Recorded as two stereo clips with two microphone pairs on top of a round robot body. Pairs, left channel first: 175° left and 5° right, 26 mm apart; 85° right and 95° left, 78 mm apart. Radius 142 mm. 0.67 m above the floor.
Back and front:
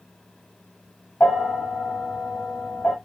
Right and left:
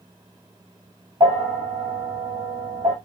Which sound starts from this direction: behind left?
A bell, at 1.2 s.